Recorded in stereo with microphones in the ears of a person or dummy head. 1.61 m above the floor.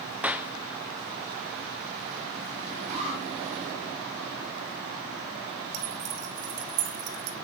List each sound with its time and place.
0.2 s a clap: 5° right (ahead or behind), 0.5 m
2.9 s an alarm: 40° right (ahead or behind), 8.5 m
5.7 s keys jangling: 65° right (ahead or behind), 2.5 m